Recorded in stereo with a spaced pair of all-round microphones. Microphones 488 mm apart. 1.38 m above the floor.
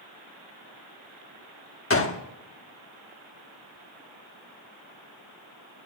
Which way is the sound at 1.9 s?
30° left (ahead or behind).